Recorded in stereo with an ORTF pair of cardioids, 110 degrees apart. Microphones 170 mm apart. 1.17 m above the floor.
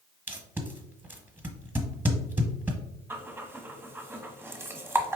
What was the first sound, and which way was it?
Tape being pulled, 10° right.